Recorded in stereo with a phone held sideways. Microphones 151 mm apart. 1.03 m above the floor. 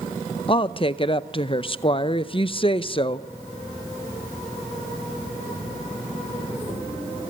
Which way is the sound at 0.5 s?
35° left (ahead or behind).